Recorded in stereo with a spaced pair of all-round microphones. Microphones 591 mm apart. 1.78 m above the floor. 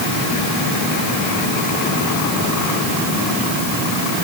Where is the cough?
I don't hear a cough.